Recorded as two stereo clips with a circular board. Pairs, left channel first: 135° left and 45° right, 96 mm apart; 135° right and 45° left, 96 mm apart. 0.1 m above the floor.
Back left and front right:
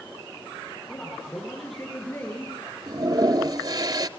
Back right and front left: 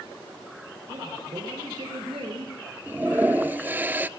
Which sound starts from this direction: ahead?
A toilet flushing, at 2.9 s.